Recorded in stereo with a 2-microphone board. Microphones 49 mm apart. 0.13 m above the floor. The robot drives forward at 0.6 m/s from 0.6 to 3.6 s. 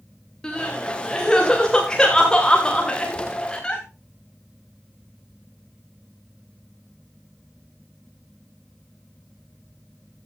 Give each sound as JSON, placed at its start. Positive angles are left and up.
{"t": 0.4, "sound": "crying", "side_deg": 10, "distance_m": 6.5}